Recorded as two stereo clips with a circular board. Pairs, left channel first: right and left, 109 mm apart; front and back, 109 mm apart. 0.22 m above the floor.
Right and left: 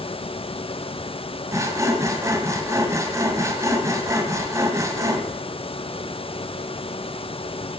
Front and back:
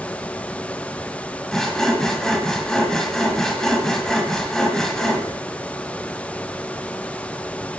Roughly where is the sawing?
Left.